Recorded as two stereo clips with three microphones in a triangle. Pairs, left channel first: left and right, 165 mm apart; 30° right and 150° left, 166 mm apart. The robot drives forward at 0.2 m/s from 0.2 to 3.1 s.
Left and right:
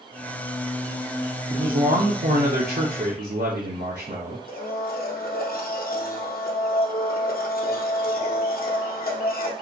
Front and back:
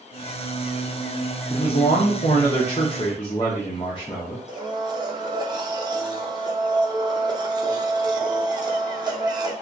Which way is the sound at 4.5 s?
90° left.